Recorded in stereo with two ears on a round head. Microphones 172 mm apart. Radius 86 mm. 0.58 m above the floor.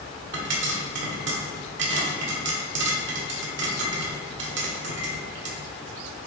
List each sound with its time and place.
0.3 s a pop: 65° right (ahead or behind), 1.6 m